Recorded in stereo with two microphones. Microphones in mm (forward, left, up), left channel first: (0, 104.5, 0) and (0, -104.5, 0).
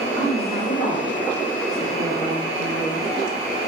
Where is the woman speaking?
35° left (ahead or behind), 9.5 m; by 3.1 s 45° left (ahead or behind), 9.5 m.